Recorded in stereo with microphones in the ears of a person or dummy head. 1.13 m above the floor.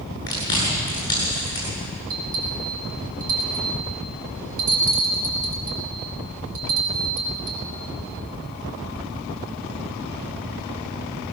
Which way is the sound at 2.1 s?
85° right.